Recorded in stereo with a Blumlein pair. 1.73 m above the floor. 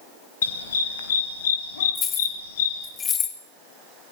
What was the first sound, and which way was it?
A dog barking, 65° left.